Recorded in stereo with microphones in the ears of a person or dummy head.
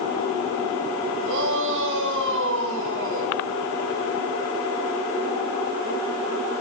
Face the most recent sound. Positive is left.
turn(degrees=-70)  # may be behind; listen again after turning